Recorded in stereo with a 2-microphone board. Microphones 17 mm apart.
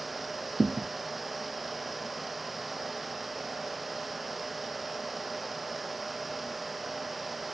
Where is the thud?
10° left (ahead or behind).